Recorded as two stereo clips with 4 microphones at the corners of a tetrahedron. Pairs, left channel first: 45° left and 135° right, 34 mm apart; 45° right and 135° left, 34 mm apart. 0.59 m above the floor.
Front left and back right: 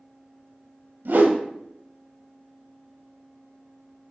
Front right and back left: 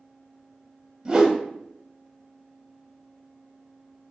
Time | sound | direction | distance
1.1 | a whoosh | 155° right | 0.7 m